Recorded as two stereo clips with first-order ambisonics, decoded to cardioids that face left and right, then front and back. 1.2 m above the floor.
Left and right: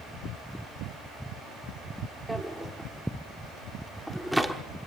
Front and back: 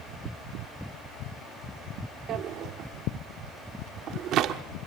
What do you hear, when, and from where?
2.3 s a drawer: straight behind, 0.9 m